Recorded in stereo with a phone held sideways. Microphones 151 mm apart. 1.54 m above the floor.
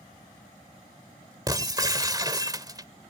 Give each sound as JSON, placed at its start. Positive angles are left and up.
{"t": 1.5, "sound": "breaking glass", "side_deg": -25}